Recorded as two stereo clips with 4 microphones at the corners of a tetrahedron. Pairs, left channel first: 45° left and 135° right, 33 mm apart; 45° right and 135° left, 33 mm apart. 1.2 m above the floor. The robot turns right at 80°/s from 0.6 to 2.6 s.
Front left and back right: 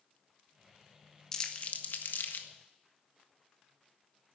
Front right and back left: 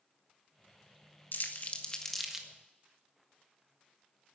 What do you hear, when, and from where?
1.3 s crumpling: 25° right, 1.5 m; by 2.5 s 65° left, 1.5 m